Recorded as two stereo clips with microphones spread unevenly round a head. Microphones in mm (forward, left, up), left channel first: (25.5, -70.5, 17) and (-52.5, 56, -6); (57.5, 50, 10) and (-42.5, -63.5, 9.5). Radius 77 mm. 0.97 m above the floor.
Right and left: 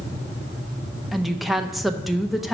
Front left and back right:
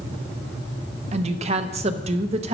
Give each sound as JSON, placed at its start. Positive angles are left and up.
{"t": 1.1, "sound": "a woman speaking", "azimuth_deg": -160, "distance_m": 0.7}